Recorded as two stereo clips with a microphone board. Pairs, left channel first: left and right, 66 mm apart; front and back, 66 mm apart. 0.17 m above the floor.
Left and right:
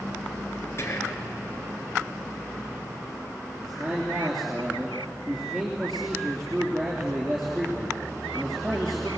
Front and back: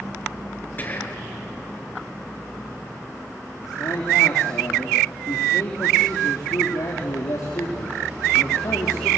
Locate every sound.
0.8 s whispering: 50° left, 3 m
3.6 s a man speaking: straight ahead, 3.5 m